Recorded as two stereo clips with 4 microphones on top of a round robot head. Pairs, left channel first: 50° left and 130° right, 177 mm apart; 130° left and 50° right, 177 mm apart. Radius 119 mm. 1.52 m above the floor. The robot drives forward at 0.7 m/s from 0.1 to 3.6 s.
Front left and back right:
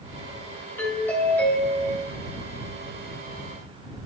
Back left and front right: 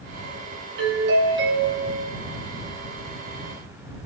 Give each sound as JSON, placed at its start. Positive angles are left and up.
{"t": 0.8, "sound": "a doorbell", "azimuth_deg": -30, "distance_m": 3.5}